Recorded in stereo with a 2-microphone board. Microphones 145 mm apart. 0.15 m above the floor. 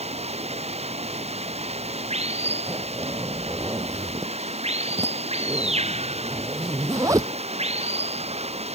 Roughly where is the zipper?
Right.